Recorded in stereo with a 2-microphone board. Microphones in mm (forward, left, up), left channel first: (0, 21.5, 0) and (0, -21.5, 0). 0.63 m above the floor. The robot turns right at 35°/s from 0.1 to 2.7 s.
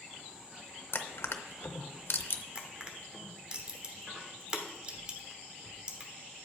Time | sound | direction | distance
0.9 | crushing | 60° left (ahead or behind) | 0.6 m
2.5 | crushing | 30° right (ahead or behind) | 1.1 m